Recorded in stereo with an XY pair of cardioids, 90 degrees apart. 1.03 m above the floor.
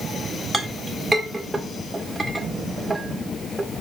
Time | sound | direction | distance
0.5 | a clink | 10° right | 1.8 m